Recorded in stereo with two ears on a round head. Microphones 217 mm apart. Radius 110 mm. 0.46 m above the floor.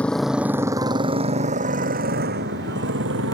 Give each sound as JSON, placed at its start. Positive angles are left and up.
{"t": 0.0, "sound": "a motorcycle", "side_deg": 5}